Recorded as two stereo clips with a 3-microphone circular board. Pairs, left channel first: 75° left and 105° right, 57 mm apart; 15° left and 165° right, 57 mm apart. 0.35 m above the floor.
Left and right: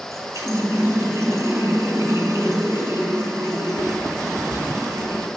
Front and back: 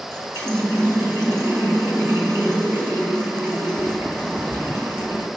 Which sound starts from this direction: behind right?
A running tap, at 0.1 s.